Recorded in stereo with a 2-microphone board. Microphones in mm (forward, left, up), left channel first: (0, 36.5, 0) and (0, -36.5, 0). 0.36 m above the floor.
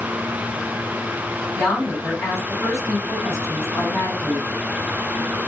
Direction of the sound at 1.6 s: 40° left (ahead or behind).